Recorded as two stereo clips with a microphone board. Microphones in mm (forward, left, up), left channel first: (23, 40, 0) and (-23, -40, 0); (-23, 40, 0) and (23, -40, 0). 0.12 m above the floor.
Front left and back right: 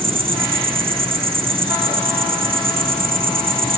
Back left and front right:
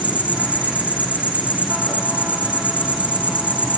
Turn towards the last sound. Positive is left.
turn(degrees=-135)